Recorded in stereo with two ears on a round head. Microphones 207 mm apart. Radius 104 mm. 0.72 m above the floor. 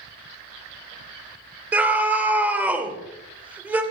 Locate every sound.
1.7 s a scream: 5° right (ahead or behind), 2 m